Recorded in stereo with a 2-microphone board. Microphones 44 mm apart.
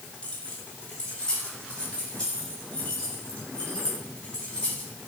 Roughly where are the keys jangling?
Left.